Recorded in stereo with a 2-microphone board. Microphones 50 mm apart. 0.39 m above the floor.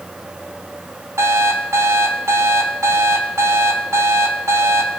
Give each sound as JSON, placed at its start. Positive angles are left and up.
{"t": 1.2, "sound": "an alarm clock", "side_deg": -75, "distance_m": 1.9}